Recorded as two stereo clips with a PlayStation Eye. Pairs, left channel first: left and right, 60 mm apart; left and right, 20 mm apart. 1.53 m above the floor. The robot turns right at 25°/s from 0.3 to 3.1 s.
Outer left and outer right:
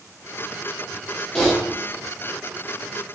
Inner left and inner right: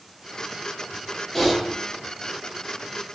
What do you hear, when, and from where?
1.4 s typing on a keyboard: 10° left (ahead or behind), 1.1 m; by 1.5 s 15° left (ahead or behind), 1.1 m